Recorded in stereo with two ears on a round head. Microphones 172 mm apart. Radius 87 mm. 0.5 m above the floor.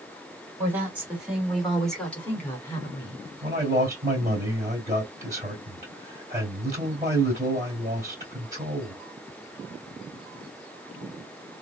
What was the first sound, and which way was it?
A woman speaking, 10° right (ahead or behind).